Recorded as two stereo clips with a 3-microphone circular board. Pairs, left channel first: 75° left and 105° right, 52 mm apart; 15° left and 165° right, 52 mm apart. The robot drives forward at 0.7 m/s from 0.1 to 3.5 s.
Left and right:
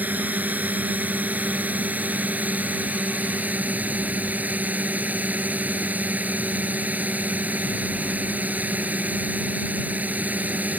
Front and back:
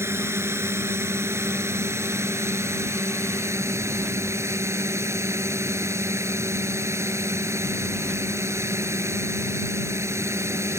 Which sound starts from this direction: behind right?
A drone, at 0.0 s.